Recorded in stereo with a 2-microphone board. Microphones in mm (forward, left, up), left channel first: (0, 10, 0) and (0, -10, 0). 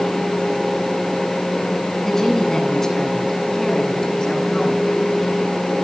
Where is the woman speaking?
20° left (ahead or behind), 8 m; by 4.8 s 35° left (ahead or behind), 10.5 m.